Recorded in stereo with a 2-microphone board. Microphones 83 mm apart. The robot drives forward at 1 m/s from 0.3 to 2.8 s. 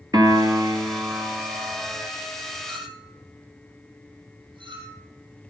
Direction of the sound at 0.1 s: 50° right (ahead or behind).